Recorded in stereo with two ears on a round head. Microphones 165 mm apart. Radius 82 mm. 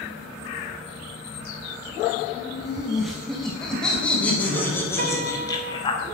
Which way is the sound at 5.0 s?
40° right (ahead or behind).